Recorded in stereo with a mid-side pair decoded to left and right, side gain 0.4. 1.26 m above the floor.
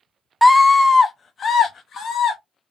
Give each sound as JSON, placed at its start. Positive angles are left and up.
{"t": 0.4, "sound": "a scream", "azimuth_deg": 10, "distance_m": 0.7}